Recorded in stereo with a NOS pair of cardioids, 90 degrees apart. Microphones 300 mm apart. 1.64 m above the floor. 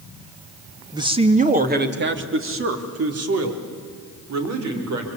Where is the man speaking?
10° right, 2 m; by 5.1 s 60° right, 5.5 m.